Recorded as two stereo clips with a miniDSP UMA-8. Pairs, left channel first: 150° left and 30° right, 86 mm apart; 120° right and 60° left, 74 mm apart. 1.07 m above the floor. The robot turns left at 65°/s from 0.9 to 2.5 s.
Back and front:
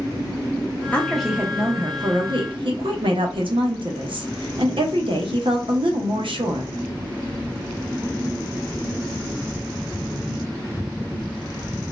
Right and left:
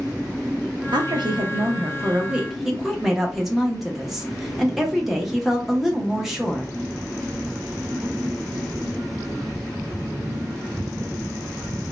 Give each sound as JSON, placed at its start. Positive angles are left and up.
{"t": 0.9, "sound": "a woman speaking", "azimuth_deg": 75, "distance_m": 0.9}